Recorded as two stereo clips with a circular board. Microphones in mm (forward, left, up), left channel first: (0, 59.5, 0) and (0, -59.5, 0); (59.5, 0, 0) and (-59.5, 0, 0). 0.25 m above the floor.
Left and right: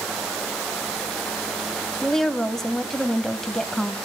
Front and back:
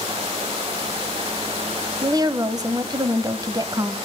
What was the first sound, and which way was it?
A woman speaking, 175° left.